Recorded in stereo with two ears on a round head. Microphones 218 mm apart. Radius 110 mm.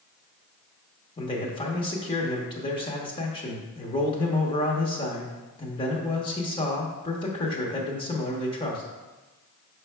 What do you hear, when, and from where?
1.2 s a man speaking: 20° left (ahead or behind), 1.0 m